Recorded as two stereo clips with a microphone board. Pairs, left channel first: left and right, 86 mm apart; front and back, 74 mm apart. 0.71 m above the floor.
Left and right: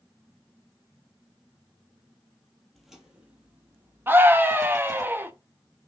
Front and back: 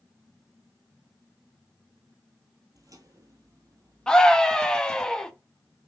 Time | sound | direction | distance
2.8 | footsteps | straight behind | 1.0 m
4.1 | a scream | 65° right | 0.5 m